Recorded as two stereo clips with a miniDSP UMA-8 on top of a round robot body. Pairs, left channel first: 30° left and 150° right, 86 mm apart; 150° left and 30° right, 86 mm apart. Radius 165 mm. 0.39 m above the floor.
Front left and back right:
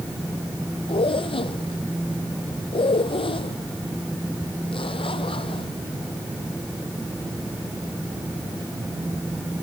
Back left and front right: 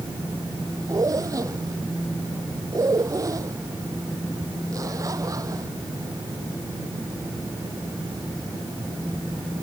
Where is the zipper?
20° left.